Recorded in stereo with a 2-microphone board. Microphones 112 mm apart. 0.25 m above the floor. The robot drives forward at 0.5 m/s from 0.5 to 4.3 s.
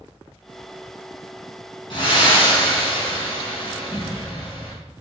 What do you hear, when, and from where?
1.9 s breathing: 50° left (ahead or behind), 3 m; by 4.8 s 55° left (ahead or behind), 2.5 m